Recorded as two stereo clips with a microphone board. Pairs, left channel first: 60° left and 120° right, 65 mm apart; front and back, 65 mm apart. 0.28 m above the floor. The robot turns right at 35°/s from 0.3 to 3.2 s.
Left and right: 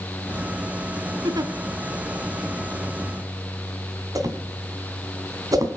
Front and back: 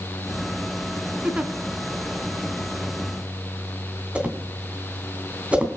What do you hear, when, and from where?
1.2 s a giggle: 110° right, 1.4 m; by 1.5 s 100° right, 1.4 m
4.2 s a whoosh: 110° right, 2.5 m